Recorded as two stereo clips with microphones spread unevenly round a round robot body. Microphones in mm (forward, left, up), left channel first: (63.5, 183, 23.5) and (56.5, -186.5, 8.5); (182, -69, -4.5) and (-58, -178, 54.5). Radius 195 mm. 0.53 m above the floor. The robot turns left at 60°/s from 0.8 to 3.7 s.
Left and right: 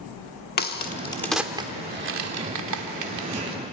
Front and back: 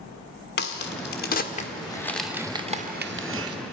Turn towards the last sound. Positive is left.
turn(degrees=-145)